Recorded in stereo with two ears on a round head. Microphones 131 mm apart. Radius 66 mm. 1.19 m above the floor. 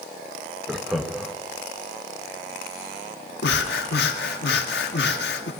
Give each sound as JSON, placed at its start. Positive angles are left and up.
{"t": 0.7, "sound": "laughter", "side_deg": 0, "distance_m": 1.1}
{"t": 3.4, "sound": "breathing", "side_deg": 80, "distance_m": 1.5}